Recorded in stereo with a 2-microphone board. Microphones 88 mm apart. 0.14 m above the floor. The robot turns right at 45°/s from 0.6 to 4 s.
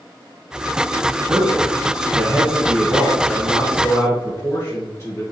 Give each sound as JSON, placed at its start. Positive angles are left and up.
{"t": 1.3, "sound": "a man speaking", "azimuth_deg": -80, "distance_m": 2.0}